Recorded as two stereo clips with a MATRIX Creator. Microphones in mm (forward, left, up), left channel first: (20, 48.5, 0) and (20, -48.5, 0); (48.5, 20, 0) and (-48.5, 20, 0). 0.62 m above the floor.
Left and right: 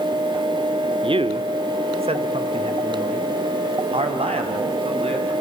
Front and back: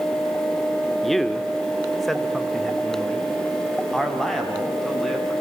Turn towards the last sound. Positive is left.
turn(degrees=-90)